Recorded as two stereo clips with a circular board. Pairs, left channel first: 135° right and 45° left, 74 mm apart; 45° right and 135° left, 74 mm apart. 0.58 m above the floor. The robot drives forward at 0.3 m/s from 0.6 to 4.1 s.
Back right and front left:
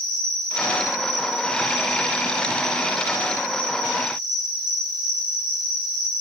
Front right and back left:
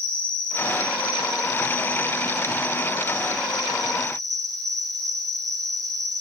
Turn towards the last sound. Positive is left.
turn(degrees=-130)